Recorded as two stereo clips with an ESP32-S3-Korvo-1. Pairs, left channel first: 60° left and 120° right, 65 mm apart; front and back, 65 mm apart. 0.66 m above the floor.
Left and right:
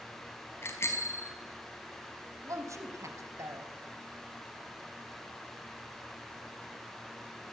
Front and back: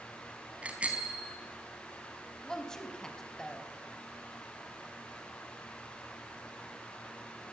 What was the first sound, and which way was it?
A bicycle bell, 110° left.